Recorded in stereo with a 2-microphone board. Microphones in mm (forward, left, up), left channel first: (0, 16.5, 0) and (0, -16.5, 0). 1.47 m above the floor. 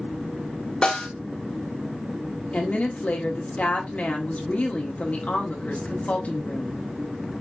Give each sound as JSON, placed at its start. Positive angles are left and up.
{"t": 0.8, "sound": "a snare drum", "side_deg": 25, "distance_m": 1.3}
{"t": 2.5, "sound": "a woman speaking", "side_deg": 45, "distance_m": 1.4}